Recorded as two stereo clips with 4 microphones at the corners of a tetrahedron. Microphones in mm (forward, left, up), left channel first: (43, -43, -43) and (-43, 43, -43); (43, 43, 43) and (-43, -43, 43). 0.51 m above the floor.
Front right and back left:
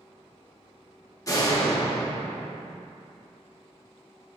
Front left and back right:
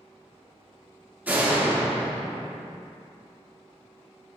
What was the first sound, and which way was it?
A door slam, 70° right.